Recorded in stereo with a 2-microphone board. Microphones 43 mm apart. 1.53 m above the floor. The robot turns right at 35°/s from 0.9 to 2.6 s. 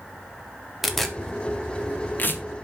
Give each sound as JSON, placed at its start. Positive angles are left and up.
{"t": 0.8, "sound": "tearing paper", "side_deg": 0, "distance_m": 1.5}